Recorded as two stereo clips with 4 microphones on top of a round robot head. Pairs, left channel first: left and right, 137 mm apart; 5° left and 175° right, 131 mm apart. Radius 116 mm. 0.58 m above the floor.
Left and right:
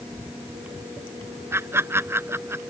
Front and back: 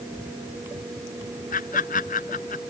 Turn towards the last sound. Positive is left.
turn(degrees=-20)